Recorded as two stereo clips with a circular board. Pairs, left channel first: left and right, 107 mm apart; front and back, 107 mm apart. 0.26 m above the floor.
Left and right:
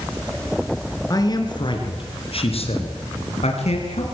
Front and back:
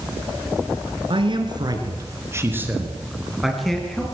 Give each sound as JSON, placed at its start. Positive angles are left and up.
{"t": 1.1, "sound": "a man speaking", "azimuth_deg": 145, "distance_m": 4.0}